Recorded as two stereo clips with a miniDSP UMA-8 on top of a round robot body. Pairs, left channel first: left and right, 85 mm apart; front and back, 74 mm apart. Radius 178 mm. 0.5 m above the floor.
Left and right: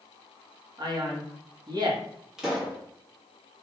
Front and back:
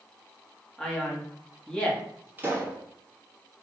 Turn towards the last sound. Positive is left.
turn(degrees=-165)